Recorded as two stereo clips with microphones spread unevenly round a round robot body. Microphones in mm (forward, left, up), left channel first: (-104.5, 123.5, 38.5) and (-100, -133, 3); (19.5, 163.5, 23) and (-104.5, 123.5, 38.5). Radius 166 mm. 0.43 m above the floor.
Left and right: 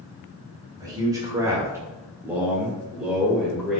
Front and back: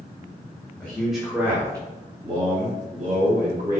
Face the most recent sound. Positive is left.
turn(degrees=-170)